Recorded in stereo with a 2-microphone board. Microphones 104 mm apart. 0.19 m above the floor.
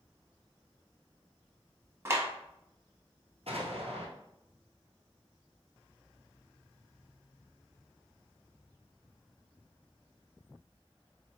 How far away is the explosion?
About 1.1 m.